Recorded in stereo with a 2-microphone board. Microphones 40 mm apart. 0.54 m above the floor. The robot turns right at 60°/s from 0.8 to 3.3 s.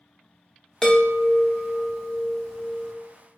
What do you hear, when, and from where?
0.8 s a chime: 15° left (ahead or behind), 1.0 m